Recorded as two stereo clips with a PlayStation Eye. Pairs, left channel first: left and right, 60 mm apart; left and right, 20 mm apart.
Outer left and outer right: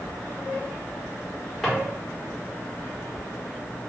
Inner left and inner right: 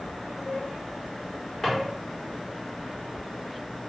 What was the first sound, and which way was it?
A drawer, 10° left (ahead or behind).